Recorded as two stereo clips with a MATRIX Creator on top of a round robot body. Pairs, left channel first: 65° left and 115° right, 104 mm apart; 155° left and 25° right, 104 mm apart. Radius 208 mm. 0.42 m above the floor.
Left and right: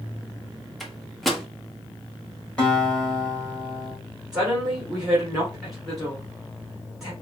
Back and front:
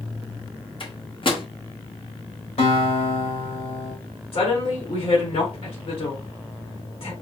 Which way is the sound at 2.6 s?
145° left.